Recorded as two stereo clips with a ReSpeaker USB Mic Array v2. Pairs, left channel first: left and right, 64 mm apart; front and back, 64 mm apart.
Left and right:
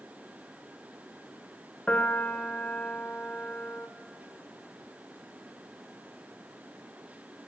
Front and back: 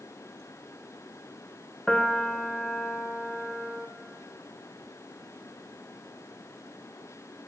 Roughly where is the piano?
Ahead left.